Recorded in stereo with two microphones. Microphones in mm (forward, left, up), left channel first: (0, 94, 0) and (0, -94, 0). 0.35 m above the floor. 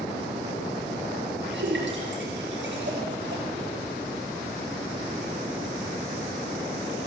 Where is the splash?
80° right, 4 m.